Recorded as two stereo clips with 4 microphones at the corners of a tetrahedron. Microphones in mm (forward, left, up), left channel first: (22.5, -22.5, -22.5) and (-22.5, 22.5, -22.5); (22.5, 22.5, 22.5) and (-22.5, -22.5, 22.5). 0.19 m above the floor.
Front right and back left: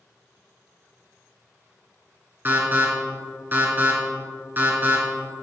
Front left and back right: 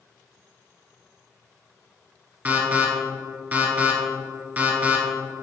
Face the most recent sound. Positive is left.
turn(degrees=180)